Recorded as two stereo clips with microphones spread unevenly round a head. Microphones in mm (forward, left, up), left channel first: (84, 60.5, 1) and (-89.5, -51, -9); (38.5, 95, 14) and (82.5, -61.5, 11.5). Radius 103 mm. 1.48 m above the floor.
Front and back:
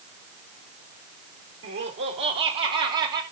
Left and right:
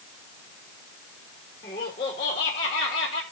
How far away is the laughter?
About 3 m.